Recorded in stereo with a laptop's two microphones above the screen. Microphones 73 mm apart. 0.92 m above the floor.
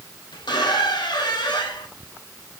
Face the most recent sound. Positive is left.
turn(degrees=75)  # may be behind; listen again after turning